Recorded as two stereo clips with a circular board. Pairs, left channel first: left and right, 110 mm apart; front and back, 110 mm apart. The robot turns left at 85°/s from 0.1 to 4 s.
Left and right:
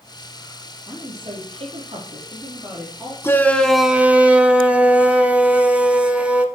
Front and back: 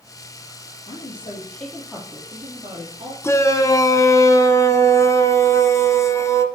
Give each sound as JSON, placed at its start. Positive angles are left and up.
{"t": 0.9, "sound": "a woman speaking", "azimuth_deg": -15, "distance_m": 4.0}
{"t": 3.2, "sound": "a shout", "azimuth_deg": 40, "distance_m": 1.2}